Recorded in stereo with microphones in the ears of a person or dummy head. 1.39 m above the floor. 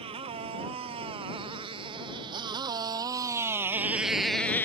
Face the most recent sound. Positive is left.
turn(degrees=20)  # may be behind; listen again after turning